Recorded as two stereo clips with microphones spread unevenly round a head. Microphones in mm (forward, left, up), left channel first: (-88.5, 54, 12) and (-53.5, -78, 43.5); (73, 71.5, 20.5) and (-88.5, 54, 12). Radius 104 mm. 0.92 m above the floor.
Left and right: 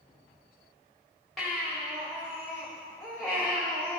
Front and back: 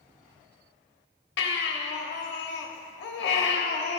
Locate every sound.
1.4 s a baby crying: 15° left, 1.1 m